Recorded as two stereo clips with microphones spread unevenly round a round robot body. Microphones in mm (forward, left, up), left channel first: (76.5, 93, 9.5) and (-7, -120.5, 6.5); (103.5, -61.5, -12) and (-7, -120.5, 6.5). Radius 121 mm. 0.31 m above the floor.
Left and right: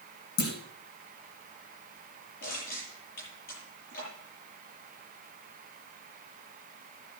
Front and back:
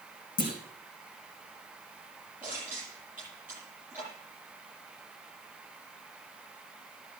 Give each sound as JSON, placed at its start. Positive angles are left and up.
{"t": 0.4, "sound": "a clunk", "azimuth_deg": 45, "distance_m": 4.0}
{"t": 2.4, "sound": "crushing", "azimuth_deg": 125, "distance_m": 9.5}